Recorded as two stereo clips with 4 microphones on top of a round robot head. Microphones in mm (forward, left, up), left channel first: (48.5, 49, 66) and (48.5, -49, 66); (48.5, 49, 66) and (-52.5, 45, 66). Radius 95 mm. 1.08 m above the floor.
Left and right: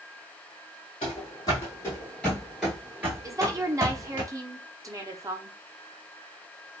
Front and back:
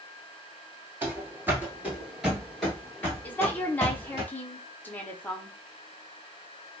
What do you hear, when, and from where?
1.0 s running footsteps: 125° left, 1.3 m; by 4.2 s 55° right, 1.4 m
3.2 s a woman speaking: 60° right, 0.8 m